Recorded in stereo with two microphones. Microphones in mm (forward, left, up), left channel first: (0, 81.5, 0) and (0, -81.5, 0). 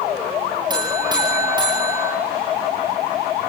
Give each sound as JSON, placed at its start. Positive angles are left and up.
{"t": 0.7, "sound": "a buzzer", "side_deg": -25, "distance_m": 6.5}